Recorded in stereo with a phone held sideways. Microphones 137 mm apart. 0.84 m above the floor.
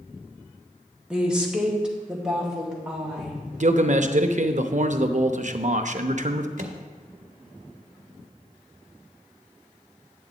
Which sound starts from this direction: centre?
A woman speaking, at 1.1 s.